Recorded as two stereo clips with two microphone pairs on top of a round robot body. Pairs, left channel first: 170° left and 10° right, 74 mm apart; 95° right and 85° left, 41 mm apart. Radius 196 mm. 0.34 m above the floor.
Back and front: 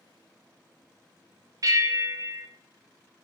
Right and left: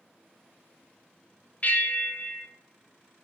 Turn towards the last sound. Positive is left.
turn(degrees=-50)